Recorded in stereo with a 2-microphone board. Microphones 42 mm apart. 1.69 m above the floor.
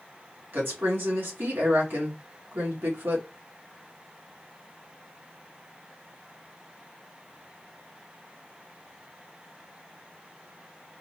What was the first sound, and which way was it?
A woman speaking, 50° right (ahead or behind).